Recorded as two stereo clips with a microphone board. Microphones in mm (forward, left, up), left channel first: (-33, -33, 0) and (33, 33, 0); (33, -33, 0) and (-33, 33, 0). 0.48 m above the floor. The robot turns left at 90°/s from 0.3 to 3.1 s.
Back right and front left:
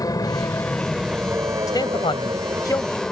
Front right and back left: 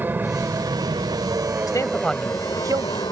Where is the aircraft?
165° right; by 3.1 s 55° right.